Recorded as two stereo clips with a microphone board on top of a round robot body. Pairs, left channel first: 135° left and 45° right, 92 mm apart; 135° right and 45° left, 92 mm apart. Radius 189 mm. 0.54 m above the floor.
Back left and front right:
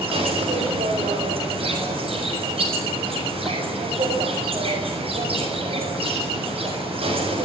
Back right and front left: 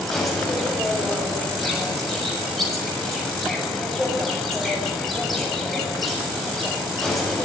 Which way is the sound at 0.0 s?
45° right.